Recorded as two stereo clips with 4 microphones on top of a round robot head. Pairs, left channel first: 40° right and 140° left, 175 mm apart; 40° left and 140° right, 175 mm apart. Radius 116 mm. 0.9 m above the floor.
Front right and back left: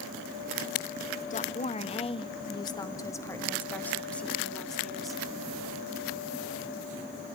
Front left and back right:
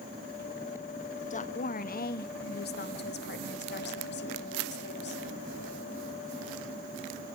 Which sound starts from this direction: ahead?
A woman speaking, at 1.3 s.